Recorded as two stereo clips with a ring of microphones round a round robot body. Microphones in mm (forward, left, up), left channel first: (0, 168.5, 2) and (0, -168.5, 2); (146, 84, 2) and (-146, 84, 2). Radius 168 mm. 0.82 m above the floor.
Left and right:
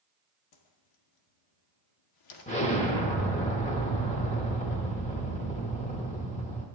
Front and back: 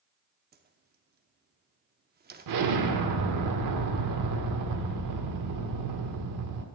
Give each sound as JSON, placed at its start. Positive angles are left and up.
{"t": 0.5, "sound": "a whoosh", "azimuth_deg": 120, "distance_m": 0.8}
{"t": 2.5, "sound": "an explosion", "azimuth_deg": 160, "distance_m": 1.1}